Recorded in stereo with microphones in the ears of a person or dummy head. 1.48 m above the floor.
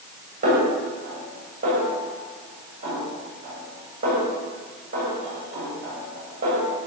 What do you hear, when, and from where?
0.4 s a snare drum: 45° right (ahead or behind), 8.5 m